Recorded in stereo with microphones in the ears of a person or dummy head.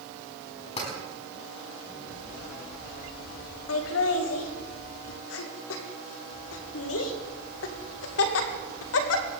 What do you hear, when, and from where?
0.8 s tapping: 35° left (ahead or behind), 5 m
3.7 s laughter: 80° left, 2 m